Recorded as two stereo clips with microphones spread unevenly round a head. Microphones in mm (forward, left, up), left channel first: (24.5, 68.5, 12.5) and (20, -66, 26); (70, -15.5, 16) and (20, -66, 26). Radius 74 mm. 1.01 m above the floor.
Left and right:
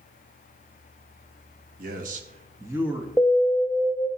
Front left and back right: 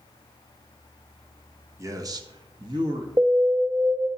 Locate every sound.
1.8 s a man speaking: 90° right, 1.3 m; by 3.1 s straight behind, 1.6 m
3.2 s an alarm: straight behind, 0.8 m